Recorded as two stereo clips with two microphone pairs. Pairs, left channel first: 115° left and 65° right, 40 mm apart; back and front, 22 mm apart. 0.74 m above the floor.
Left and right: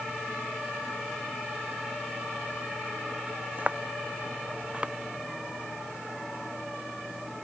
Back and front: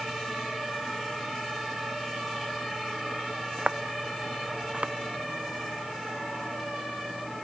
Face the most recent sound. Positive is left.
turn(degrees=-5)